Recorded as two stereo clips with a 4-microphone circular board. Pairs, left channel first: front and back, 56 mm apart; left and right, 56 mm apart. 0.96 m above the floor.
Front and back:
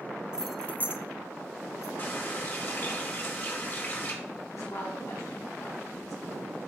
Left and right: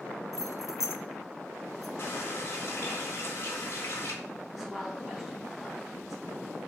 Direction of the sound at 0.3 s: 105° left.